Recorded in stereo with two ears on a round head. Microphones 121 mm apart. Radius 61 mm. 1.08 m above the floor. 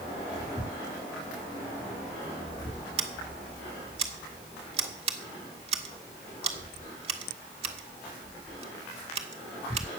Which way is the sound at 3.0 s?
45° right (ahead or behind).